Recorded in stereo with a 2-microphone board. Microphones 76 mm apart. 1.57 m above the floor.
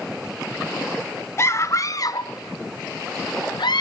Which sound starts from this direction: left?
A scream, at 1.4 s.